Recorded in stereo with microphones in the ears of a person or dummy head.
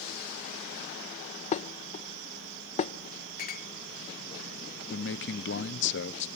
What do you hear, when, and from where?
1.5 s dishes clattering: 35° left (ahead or behind), 0.6 m
3.4 s a clink: 50° left (ahead or behind), 0.9 m
4.9 s a man speaking: 50° left (ahead or behind), 0.7 m